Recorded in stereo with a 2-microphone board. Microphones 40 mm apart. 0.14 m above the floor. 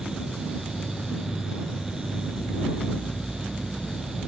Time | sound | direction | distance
0.0 | an insect | 10° left (ahead or behind) | ?